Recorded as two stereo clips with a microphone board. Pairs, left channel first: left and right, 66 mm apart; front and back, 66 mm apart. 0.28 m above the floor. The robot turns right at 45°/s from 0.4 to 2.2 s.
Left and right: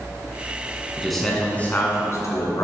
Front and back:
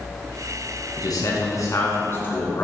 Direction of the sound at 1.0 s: 5° right.